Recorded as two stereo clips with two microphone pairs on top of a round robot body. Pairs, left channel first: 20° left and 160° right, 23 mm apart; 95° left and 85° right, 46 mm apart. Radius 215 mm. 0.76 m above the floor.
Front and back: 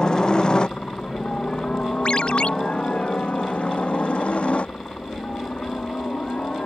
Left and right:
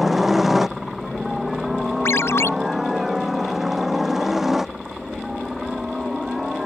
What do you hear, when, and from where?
0.0 s a helicopter: straight ahead
2.0 s a ringtone: 70° left